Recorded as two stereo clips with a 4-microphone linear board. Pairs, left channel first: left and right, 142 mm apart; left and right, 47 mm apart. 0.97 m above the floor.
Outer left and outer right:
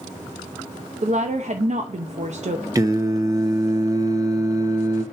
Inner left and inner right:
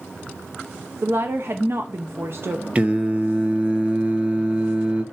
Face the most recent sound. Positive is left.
turn(degrees=-25)  # may be behind; listen again after turning